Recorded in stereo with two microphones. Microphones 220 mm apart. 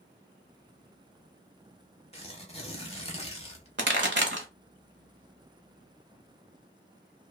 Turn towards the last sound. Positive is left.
turn(degrees=-60)  # may be behind; listen again after turning